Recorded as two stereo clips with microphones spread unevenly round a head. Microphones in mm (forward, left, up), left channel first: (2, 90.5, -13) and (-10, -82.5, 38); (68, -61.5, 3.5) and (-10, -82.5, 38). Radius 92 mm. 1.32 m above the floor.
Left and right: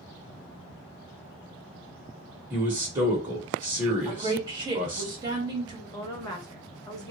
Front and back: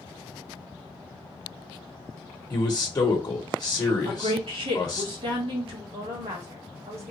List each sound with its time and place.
2.5 s a man speaking: 20° right, 1.0 m
4.0 s a woman speaking: 165° right, 1.8 m
5.9 s a woman speaking: 150° left, 1.2 m